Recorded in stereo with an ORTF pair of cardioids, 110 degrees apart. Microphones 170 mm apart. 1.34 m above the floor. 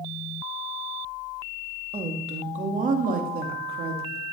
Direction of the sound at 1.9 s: 35° right.